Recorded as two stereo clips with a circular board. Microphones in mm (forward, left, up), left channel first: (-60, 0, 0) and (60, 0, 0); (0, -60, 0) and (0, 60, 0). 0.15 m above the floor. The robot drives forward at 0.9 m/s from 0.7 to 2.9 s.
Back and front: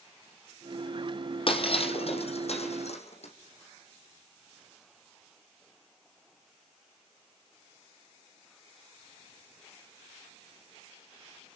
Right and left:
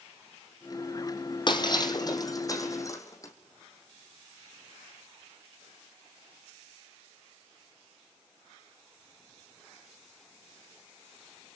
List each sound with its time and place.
1.5 s breaking glass: 140° right, 2.5 m; by 3.3 s 155° right, 4 m